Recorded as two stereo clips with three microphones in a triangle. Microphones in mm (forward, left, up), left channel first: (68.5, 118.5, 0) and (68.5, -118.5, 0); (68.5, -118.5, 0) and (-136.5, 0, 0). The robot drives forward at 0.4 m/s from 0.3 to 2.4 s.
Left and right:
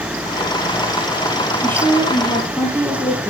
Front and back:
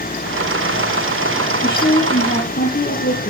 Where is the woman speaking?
10° left, 7 m.